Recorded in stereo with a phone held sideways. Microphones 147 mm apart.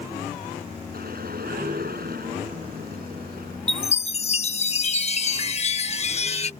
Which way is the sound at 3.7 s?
45° left (ahead or behind).